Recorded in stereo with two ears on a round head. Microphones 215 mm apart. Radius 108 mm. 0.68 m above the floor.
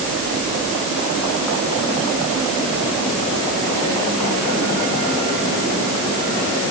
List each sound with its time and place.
Only background noise.